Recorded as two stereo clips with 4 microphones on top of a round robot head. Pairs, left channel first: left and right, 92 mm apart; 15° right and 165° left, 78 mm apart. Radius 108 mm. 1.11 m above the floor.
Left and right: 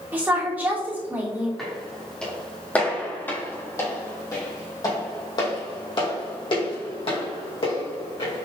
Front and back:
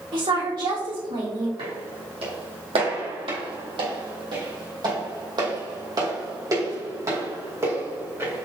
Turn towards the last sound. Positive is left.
turn(degrees=105)